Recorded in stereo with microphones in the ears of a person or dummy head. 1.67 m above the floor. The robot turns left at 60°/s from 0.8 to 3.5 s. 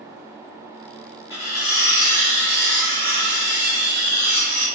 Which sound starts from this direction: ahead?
Cutlery clinking, at 1.3 s.